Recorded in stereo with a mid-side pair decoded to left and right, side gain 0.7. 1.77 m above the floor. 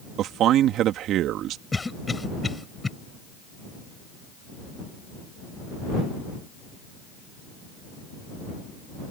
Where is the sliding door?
No sliding door in this recording.